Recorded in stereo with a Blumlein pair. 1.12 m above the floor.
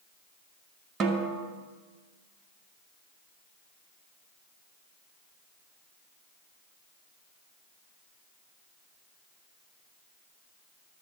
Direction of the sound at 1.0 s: 25° right.